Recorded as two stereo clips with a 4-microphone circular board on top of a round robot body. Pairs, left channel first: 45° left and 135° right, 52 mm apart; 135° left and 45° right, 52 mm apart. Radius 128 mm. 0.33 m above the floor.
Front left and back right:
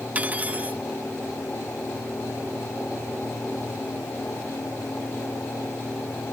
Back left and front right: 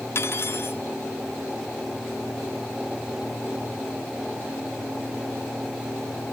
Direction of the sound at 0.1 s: 165° left.